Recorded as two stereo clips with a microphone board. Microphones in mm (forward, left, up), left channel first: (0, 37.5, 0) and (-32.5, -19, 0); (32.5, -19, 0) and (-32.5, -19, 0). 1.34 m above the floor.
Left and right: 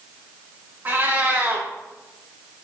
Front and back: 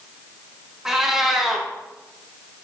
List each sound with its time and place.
0.8 s a cat meowing: 105° right, 0.6 m